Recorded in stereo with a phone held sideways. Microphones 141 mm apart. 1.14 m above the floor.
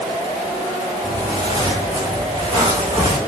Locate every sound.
1.0 s footsteps: 30° right (ahead or behind), 4.5 m; by 3.2 s 25° right (ahead or behind), 3.5 m